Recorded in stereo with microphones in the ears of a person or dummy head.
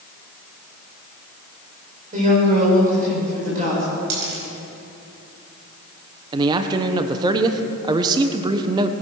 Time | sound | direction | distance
2.1 | a woman speaking | 40° right (ahead or behind) | 6 m
4.1 | a dropped coin | 70° right (ahead or behind) | 4.5 m
6.3 | a man speaking | 25° right (ahead or behind) | 0.9 m